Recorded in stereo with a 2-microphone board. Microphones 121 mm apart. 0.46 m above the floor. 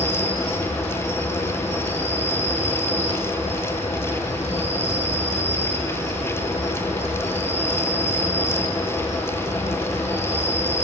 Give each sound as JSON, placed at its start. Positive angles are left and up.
{"t": 0.0, "sound": "an insect", "side_deg": 75, "distance_m": 1.7}